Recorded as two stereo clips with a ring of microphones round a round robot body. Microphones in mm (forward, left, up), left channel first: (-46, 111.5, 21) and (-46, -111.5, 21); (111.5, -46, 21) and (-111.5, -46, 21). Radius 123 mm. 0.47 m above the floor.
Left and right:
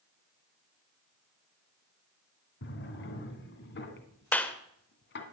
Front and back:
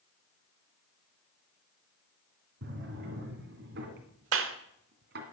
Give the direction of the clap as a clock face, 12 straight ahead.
6 o'clock.